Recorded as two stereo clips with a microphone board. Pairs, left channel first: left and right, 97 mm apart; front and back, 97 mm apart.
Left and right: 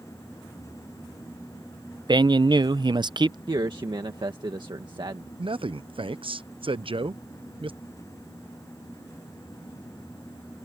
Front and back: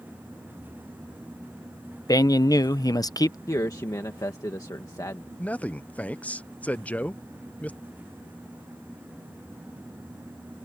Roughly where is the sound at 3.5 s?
Ahead right.